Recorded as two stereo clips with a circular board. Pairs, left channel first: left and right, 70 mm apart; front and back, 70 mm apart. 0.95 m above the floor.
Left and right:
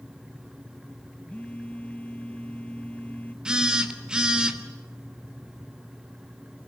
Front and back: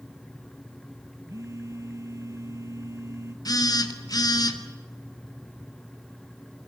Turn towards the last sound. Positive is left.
turn(degrees=-10)